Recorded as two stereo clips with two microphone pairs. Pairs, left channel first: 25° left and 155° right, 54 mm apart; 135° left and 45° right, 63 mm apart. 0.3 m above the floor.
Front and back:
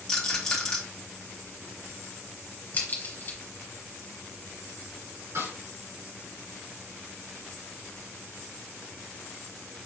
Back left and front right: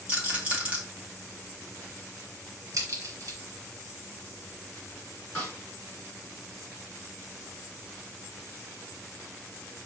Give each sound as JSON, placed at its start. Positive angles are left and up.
{"t": 0.1, "sound": "a rattle", "azimuth_deg": -15, "distance_m": 1.6}
{"t": 2.7, "sound": "a crack", "azimuth_deg": -20, "distance_m": 2.0}
{"t": 5.3, "sound": "a snare drum", "azimuth_deg": -150, "distance_m": 2.5}